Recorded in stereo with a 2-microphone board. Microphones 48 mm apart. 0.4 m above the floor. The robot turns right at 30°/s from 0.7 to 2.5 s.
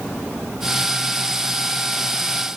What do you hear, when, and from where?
Only background noise.